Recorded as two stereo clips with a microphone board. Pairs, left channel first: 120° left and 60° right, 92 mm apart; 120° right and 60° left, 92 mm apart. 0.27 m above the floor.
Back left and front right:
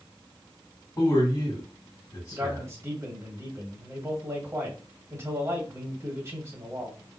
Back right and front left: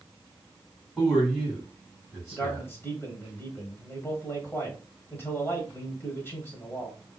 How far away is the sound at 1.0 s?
About 2 m.